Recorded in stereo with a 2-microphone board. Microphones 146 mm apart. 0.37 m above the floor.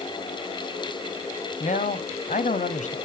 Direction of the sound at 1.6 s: 60° left (ahead or behind).